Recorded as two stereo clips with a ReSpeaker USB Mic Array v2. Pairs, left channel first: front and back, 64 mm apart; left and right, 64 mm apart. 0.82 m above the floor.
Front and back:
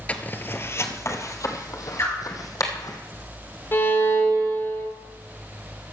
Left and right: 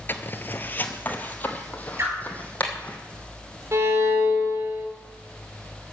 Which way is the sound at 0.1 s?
55° left.